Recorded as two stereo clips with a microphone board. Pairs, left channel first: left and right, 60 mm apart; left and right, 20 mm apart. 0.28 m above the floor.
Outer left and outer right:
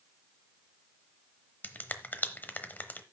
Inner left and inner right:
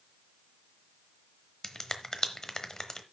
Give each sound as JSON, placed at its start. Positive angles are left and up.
{"t": 1.6, "sound": "a finger snap", "side_deg": 30, "distance_m": 0.9}